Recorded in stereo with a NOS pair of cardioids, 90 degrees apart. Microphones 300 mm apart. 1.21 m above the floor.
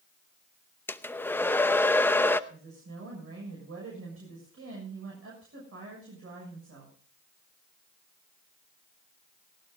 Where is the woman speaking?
50° right, 7 m.